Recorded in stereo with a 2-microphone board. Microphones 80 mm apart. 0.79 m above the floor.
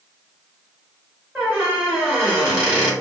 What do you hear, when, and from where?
1.4 s a squeak: 25° right (ahead or behind), 1.7 m